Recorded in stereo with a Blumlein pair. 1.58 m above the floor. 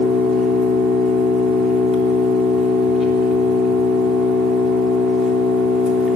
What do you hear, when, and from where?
0.0 s an engine running: 25° left, 3 m